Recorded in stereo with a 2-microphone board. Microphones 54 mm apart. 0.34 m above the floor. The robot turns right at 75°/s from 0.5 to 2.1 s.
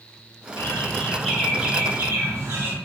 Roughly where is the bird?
Behind left.